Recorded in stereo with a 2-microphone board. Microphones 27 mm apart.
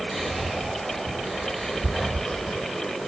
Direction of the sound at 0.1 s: 5° right (ahead or behind).